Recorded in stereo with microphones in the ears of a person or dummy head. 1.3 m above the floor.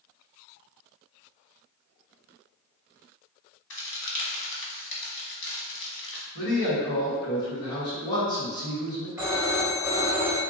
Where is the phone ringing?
10° right (ahead or behind), 1.4 m.